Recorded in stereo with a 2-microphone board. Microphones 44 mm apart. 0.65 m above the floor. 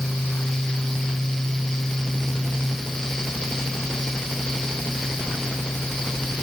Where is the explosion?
I don't hear an explosion.